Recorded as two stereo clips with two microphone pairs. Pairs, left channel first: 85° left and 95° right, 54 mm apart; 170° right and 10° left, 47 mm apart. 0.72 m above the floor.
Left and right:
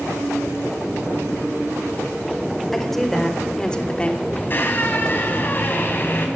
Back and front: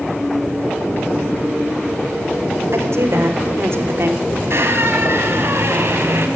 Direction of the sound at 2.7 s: Straight ahead.